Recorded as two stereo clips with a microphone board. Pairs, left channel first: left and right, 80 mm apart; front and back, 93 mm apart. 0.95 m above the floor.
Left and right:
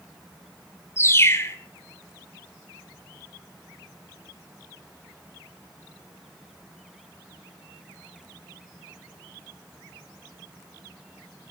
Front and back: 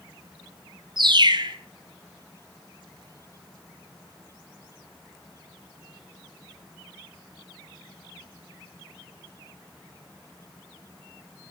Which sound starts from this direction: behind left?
A bird, at 1.0 s.